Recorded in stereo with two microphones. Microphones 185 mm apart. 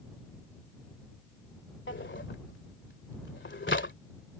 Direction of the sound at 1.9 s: 75° left (ahead or behind).